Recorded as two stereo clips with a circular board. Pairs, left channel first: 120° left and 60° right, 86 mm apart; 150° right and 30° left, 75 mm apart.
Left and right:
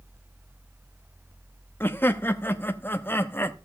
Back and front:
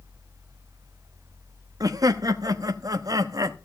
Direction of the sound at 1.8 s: 55° left.